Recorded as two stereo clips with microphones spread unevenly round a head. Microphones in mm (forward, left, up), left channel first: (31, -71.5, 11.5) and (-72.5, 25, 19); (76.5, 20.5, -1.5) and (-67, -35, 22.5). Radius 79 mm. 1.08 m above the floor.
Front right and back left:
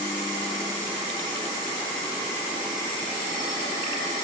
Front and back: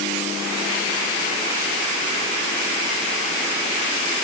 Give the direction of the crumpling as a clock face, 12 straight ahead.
I don't hear crumpling.